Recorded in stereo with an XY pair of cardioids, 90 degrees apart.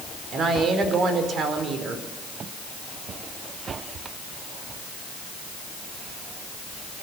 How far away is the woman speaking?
About 4.5 m.